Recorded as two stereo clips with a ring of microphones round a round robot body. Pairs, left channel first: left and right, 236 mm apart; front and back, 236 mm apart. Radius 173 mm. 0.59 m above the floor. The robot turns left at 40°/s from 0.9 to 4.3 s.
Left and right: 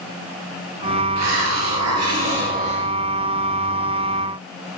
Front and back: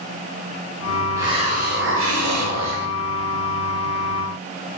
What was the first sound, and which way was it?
A hiss, 100° right.